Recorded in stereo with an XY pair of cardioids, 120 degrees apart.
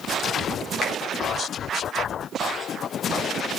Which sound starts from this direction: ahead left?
A finger snap, at 0.8 s.